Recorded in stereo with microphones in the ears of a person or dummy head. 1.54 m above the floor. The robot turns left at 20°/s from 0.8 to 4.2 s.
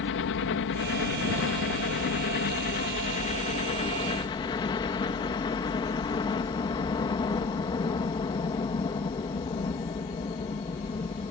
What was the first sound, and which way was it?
A helicopter, 95° left.